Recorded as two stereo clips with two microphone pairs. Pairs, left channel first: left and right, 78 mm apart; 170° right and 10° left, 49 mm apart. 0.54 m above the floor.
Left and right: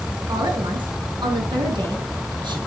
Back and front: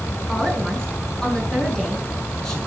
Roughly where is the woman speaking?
Right.